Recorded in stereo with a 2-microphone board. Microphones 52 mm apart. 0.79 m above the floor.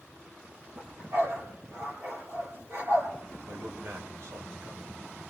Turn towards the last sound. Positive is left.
turn(degrees=-80)